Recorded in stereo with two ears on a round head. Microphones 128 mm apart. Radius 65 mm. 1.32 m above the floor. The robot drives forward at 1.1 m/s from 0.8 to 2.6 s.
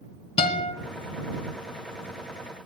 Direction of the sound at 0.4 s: 40° left (ahead or behind).